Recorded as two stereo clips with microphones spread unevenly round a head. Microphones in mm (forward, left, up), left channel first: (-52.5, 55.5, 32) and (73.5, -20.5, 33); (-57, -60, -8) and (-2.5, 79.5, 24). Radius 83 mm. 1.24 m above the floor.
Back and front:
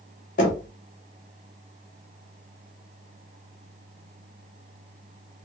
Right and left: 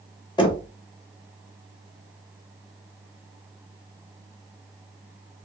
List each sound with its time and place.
0.4 s knocking: 170° right, 1.2 m